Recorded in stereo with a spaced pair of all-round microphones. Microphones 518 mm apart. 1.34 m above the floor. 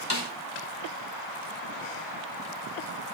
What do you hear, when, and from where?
0.1 s a snare drum: 50° left (ahead or behind), 2.5 m